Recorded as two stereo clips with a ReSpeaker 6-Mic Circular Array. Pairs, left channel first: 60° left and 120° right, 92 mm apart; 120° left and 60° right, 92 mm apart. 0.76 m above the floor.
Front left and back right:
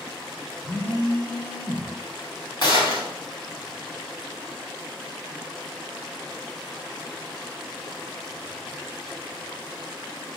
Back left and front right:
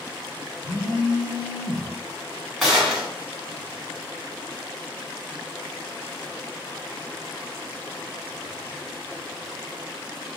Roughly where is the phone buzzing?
Ahead.